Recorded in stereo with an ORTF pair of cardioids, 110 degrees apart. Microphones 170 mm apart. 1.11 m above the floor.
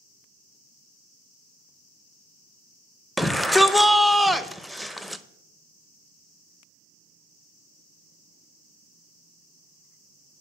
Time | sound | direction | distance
3.2 | a shout | straight ahead | 0.6 m